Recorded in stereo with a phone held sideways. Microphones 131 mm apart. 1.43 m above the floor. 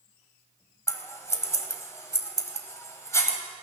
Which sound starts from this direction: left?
Scissors, at 0.9 s.